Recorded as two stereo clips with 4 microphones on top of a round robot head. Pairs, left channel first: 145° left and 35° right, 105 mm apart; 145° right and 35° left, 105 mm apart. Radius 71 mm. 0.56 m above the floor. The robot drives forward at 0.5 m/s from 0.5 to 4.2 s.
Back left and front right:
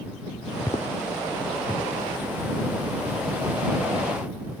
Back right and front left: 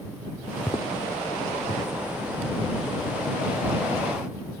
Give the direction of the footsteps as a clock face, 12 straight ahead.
7 o'clock.